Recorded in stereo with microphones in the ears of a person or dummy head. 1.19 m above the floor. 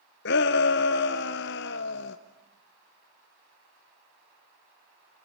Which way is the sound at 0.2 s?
50° left (ahead or behind).